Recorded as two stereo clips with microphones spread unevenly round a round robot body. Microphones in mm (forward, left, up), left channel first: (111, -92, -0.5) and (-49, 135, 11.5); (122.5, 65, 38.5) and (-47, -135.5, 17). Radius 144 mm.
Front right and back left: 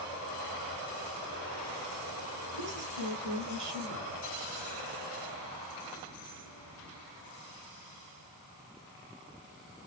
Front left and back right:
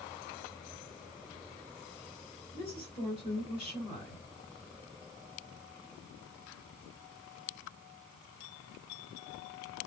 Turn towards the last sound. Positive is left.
turn(degrees=120)